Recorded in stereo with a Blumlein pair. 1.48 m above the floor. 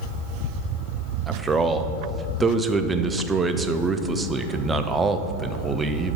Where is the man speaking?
15° right, 0.5 m.